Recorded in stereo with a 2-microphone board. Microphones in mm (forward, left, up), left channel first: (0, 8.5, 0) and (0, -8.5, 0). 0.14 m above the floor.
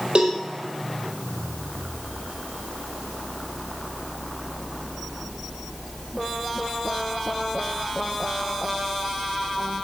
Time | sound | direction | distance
0.1 | a cowbell | 70° right (ahead or behind) | 2 m